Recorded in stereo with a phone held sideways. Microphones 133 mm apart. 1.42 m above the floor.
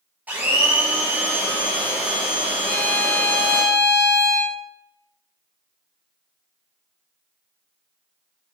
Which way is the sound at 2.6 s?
20° right (ahead or behind).